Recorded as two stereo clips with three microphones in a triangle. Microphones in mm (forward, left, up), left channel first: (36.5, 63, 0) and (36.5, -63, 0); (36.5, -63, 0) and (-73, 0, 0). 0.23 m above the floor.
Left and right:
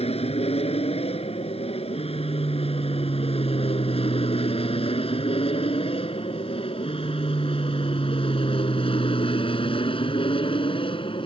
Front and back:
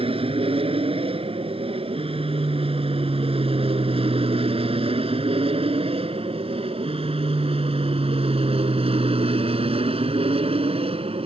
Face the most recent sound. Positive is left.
turn(degrees=125)